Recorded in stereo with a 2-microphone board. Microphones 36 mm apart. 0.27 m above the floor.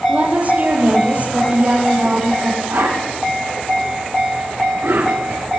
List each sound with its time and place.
0.1 s a woman speaking: 45° right (ahead or behind), 9.5 m
2.7 s a whoosh: 75° right (ahead or behind), 10 m